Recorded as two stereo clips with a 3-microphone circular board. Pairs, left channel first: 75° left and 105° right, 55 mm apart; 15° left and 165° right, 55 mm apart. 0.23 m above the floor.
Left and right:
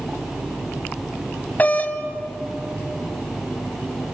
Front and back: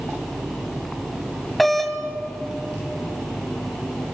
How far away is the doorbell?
About 1.7 m.